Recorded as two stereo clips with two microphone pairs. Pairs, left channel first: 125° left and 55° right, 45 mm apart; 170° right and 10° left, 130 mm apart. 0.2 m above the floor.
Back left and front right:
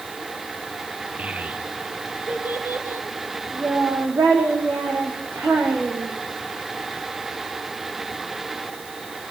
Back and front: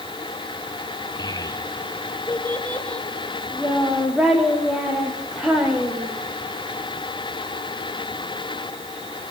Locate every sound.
1.2 s a child speaking: 115° right, 2 m; by 6.2 s 75° right, 6.5 m